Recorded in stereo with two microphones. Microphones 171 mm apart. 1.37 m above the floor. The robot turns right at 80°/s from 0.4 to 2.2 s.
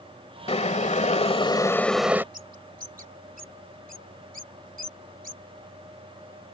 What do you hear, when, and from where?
0.5 s boiling: 60° left; by 2.2 s 165° right
2.3 s a bird: 55° right (ahead or behind)